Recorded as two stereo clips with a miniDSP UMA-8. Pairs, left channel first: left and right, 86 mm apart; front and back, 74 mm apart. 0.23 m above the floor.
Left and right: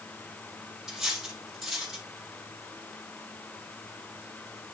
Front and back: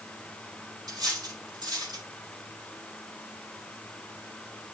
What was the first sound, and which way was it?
Cutlery clinking, 175° right.